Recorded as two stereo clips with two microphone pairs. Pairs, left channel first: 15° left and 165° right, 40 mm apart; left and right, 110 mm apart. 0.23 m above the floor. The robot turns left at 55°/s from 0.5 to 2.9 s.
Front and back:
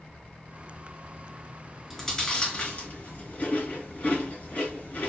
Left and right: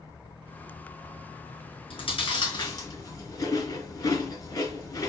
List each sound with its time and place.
1.9 s chewing: 100° left, 2.5 m; by 5.1 s 45° left, 2.5 m